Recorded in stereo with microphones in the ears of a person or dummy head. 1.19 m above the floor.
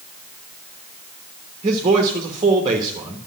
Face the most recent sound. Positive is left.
turn(degrees=-25)  # may be behind; listen again after turning